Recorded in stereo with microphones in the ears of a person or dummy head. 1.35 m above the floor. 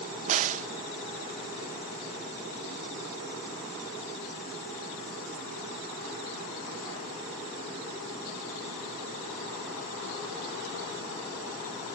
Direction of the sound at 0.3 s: 40° right (ahead or behind).